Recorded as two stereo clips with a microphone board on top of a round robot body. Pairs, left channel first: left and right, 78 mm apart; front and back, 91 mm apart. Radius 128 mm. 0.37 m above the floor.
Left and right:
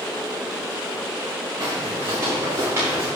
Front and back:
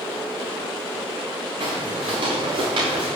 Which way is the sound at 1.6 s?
145° right.